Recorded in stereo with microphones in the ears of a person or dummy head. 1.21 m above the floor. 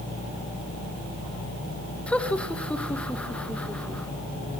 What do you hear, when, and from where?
2.1 s laughter: 10° left (ahead or behind), 1.6 m